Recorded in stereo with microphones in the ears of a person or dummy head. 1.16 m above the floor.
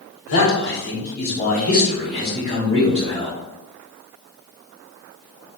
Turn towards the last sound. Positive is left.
turn(degrees=20)  # may be behind; listen again after turning